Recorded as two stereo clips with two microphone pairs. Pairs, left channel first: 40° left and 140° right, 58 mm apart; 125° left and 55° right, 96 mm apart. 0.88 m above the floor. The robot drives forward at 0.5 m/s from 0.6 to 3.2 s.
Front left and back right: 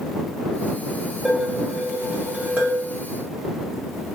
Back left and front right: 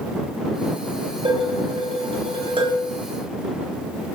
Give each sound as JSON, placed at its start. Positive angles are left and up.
{"t": 1.2, "sound": "dishes clattering", "azimuth_deg": -65, "distance_m": 2.5}